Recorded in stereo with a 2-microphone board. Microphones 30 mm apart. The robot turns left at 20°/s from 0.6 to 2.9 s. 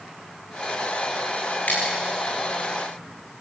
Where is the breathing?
I don't hear breathing.